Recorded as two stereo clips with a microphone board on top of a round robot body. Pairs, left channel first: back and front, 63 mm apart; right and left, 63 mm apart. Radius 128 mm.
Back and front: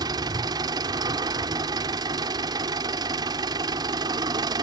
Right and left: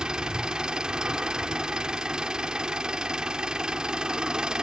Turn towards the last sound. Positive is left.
turn(degrees=10)